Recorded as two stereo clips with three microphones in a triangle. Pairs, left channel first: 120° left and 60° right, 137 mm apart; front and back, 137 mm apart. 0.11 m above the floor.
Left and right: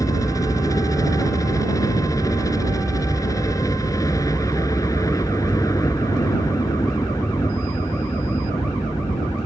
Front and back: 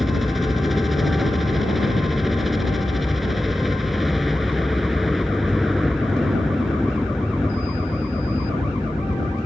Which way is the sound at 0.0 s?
90° left.